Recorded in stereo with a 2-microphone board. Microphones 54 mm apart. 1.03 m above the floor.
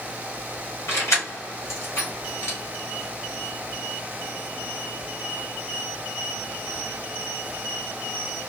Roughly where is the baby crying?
No baby crying in this recording.